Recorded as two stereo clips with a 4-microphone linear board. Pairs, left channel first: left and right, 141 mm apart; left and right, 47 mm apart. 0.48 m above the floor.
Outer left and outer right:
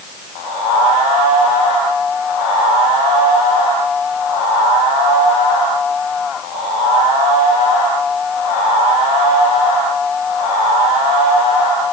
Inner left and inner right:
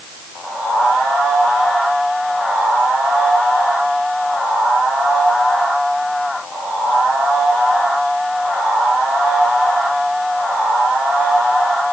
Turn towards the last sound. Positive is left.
No sound to turn to.